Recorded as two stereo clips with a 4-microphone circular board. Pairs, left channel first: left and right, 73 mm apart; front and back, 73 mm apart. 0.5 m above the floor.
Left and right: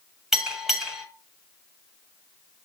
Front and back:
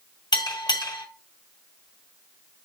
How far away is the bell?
About 2 m.